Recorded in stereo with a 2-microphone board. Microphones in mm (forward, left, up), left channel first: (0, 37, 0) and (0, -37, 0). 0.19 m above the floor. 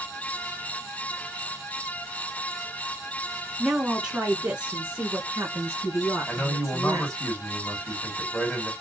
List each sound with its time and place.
3.6 s a woman speaking: 5° right (ahead or behind), 1.8 m; by 7.2 s 45° right (ahead or behind), 3 m
6.3 s a man speaking: 20° left (ahead or behind), 1.6 m